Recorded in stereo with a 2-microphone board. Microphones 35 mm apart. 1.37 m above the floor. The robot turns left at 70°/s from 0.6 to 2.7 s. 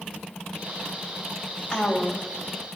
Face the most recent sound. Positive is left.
turn(degrees=90)